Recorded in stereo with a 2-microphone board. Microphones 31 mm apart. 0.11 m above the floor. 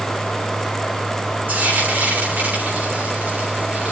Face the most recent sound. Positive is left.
turn(degrees=-70)  # may be behind; listen again after turning